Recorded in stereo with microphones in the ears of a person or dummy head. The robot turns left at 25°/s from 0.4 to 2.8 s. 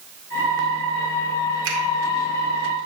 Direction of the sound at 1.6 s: 80° right.